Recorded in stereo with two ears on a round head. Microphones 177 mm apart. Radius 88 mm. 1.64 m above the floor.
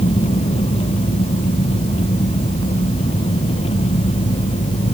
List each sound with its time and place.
0.0 s an engine running: 30° left (ahead or behind)